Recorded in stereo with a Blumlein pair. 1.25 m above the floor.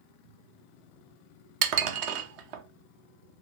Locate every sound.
1.6 s dishes clattering: 45° right, 0.7 m